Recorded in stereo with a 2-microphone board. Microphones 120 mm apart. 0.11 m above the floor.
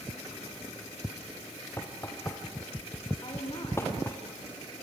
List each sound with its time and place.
1.8 s knocking: 20° left (ahead or behind), 3 m
3.2 s a woman speaking: 40° left (ahead or behind), 8 m